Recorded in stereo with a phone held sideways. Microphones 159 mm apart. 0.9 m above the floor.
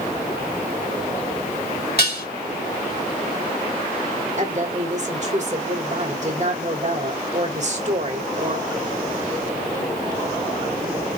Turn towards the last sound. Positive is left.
turn(degrees=-50)  # may be behind; listen again after turning